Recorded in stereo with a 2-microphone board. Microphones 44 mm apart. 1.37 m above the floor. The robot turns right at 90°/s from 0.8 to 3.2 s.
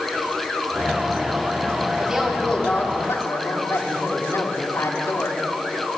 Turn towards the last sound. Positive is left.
turn(degrees=85)